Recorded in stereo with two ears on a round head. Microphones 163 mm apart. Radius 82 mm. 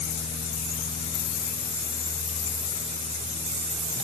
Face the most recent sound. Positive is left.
No sound to turn to.